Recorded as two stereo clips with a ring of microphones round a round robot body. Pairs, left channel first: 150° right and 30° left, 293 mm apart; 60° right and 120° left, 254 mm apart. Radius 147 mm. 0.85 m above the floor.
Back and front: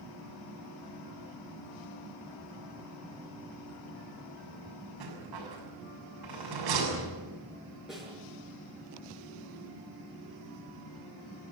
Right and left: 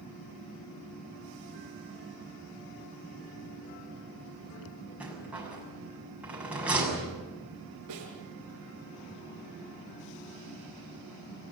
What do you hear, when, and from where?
5.0 s a rattle: 35° left, 7 m
7.9 s a snare drum: 120° left, 7 m